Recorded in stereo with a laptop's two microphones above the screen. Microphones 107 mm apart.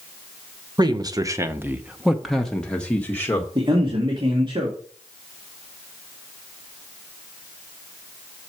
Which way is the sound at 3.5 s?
45° right (ahead or behind).